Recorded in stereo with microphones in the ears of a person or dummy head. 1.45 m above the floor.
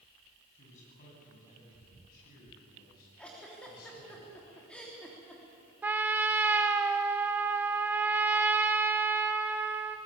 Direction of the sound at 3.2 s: 5° left (ahead or behind).